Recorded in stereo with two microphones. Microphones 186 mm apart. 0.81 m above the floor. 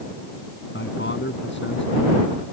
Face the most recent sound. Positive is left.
turn(degrees=80)